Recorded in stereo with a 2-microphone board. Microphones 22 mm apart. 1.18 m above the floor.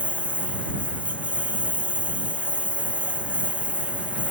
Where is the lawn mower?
80° right; by 4.3 s 70° right (ahead or behind).